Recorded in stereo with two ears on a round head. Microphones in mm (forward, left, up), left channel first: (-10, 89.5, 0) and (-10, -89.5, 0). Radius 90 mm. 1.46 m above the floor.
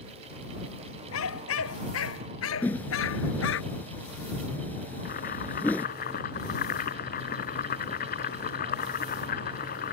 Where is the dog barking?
75° left (ahead or behind); by 3.6 s 70° left (ahead or behind).